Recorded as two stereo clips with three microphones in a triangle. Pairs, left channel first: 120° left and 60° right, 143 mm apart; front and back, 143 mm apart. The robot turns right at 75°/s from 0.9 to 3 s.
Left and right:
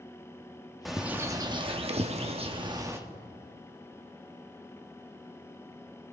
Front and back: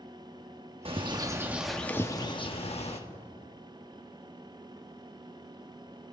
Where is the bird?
150° right, 1.0 m; by 3.0 s 5° left, 1.0 m.